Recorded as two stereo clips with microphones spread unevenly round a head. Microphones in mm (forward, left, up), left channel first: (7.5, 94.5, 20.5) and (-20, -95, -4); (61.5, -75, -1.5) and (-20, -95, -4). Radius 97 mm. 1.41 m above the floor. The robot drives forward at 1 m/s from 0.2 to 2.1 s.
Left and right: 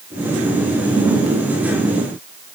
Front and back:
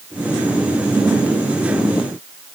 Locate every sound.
Only background noise.